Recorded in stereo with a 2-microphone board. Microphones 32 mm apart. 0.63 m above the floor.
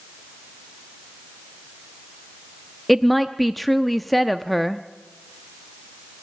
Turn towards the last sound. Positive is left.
turn(degrees=0)  # may be behind; listen again after turning